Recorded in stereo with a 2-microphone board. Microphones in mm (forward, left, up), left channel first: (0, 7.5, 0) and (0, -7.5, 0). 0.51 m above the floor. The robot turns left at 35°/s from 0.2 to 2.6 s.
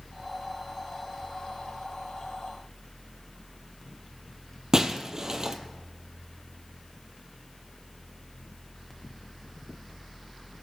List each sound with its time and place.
4.7 s breaking glass: 35° right (ahead or behind), 1.1 m